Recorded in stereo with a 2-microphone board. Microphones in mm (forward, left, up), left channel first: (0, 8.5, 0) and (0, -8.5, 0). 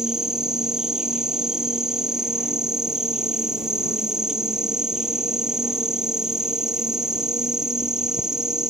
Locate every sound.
0.0 s an insect: 35° right (ahead or behind)